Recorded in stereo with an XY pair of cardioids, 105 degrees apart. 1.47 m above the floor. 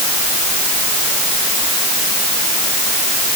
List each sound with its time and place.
Only background noise.